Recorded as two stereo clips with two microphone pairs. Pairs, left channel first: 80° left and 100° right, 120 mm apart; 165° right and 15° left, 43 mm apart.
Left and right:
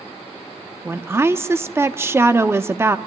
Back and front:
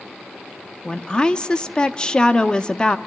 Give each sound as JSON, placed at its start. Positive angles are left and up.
{"t": 0.8, "sound": "a woman speaking", "azimuth_deg": -130, "distance_m": 0.7}